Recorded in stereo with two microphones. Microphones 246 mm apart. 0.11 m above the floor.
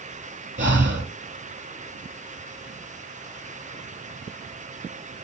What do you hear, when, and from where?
0.6 s breathing: 50° right (ahead or behind), 2.5 m